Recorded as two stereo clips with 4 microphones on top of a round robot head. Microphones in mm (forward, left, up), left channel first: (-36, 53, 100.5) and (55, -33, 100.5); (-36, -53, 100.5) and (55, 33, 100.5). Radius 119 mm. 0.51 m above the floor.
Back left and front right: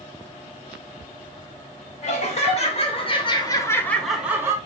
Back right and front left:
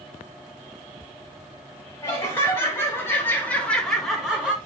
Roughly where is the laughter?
Behind left.